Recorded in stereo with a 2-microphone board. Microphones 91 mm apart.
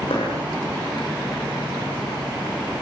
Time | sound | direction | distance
0.1 | a dropped coin | 80° left | 7 m